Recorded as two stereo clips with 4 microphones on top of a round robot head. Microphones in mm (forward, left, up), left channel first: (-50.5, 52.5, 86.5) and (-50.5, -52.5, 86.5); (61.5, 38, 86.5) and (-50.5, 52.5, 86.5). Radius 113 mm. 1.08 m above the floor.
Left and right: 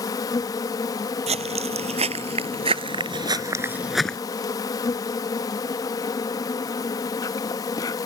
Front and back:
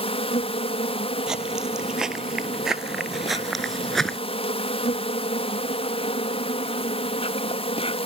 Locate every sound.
0.0 s an insect: 30° left
1.3 s footsteps: 100° right; by 4.2 s 70° left